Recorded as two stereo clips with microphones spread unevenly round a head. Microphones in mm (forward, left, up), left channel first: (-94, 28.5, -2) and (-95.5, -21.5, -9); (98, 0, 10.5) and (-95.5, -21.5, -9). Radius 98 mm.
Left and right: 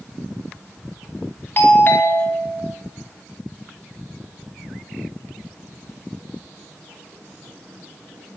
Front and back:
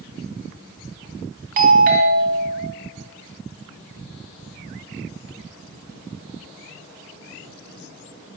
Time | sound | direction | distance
1.6 | a doorbell | 140° left | 3.5 m